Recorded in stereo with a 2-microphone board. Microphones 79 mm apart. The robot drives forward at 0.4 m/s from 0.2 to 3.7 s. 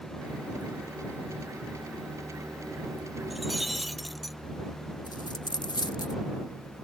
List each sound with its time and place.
3.3 s breaking glass: centre (ahead or behind)
5.1 s a dropped coin: 60° left (ahead or behind)